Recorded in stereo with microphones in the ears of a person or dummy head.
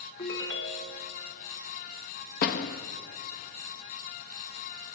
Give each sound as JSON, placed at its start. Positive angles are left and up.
{"t": 0.2, "sound": "a ringtone", "side_deg": 25, "distance_m": 1.2}
{"t": 2.4, "sound": "a door slam", "side_deg": 55, "distance_m": 1.5}